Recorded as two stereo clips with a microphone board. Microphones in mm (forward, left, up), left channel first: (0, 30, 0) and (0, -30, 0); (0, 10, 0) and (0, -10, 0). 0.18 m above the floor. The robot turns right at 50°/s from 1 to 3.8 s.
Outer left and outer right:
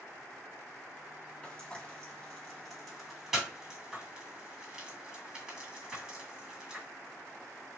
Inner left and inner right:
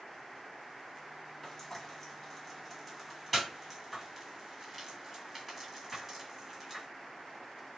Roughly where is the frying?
Left.